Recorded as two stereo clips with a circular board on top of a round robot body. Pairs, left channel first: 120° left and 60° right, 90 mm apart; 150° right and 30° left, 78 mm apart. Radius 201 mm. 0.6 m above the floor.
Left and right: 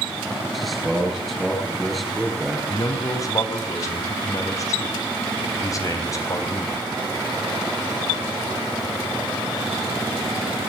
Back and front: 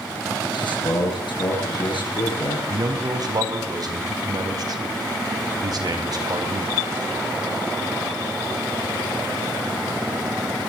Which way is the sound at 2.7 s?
65° left.